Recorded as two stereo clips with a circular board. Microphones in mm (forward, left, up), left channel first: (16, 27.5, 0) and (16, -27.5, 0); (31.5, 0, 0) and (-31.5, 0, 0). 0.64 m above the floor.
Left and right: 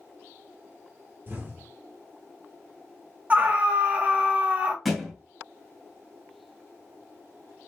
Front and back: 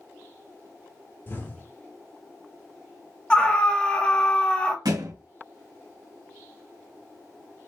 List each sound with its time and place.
1.3 s an explosion: 45° right, 1.9 m
3.3 s a scream: 55° right, 1.3 m
4.8 s a thud: straight behind, 1.9 m